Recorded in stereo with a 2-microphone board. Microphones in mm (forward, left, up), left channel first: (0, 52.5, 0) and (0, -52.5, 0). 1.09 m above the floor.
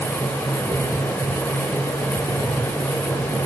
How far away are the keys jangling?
I don't hear keys jangling.